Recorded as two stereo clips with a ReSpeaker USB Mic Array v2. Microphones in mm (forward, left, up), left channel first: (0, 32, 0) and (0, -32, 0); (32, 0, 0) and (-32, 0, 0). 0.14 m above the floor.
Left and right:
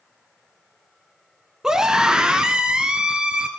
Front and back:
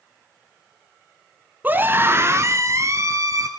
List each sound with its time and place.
1.6 s a scream: 160° right, 1.3 m; by 3.5 s 165° right, 2.5 m